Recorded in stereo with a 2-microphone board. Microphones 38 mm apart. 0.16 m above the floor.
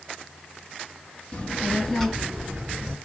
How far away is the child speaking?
About 1.4 m.